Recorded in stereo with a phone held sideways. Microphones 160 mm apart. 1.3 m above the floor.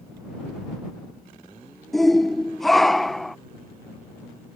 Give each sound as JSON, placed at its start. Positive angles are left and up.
{"t": 1.9, "sound": "a shout", "side_deg": 0}